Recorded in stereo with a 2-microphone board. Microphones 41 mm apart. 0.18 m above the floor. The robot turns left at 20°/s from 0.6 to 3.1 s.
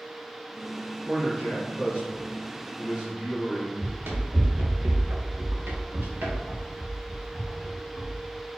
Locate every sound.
1.0 s a man speaking: 85° right, 1.5 m; by 3.7 s 130° right, 1.5 m
3.8 s running footsteps: 55° right (ahead or behind), 1.8 m; by 8.2 s 25° right (ahead or behind), 2.5 m